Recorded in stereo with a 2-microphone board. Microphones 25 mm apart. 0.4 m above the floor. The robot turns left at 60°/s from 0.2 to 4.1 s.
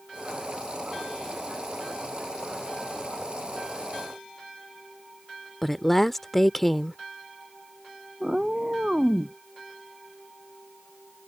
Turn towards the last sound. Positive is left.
turn(degrees=-25)  # may be behind; listen again after turning